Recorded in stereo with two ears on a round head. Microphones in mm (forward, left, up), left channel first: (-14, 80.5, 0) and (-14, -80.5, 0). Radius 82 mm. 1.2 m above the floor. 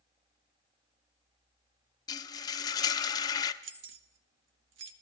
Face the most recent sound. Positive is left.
turn(degrees=-75)  # may be behind; listen again after turning